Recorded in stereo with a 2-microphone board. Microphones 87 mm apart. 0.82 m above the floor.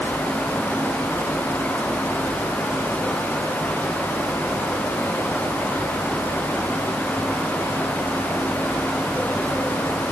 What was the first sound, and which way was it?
Only background noise.